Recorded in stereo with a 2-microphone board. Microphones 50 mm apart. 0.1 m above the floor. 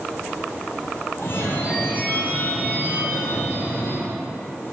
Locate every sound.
1.2 s a phone ringing: 55° left (ahead or behind), 2 m